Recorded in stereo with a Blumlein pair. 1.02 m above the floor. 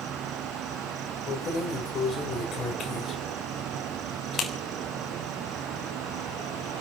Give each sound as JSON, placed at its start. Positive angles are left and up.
{"t": 0.0, "sound": "an insect", "azimuth_deg": -30, "distance_m": 0.8}
{"t": 1.3, "sound": "keys jangling", "azimuth_deg": 25, "distance_m": 3.5}